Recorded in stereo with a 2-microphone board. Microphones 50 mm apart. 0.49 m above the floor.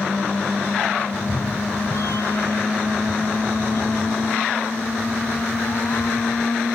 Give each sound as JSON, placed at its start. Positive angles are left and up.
{"t": 1.1, "sound": "a cat meowing", "side_deg": 75}